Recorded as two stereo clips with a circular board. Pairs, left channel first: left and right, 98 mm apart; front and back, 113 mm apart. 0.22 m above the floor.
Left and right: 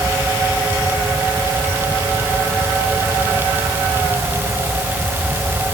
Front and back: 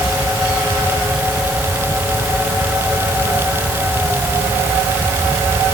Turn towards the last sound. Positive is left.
No sound to turn to.